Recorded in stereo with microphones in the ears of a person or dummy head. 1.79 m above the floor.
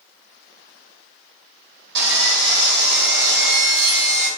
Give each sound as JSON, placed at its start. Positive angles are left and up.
{"t": 1.9, "sound": "sawing", "side_deg": -65, "distance_m": 1.5}